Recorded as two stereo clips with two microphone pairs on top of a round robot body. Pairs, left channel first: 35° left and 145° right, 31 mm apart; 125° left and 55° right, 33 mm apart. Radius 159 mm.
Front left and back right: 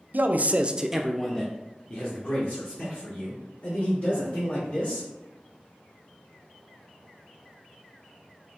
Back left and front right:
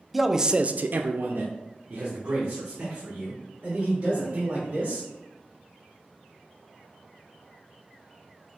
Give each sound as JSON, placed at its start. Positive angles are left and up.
{"t": 0.1, "sound": "a man speaking", "azimuth_deg": -145, "distance_m": 0.7}